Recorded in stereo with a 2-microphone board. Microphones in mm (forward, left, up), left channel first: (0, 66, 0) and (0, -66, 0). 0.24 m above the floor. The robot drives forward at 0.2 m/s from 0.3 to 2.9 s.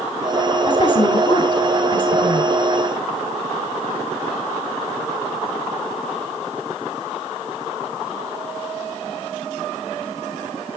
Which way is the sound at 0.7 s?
40° left (ahead or behind).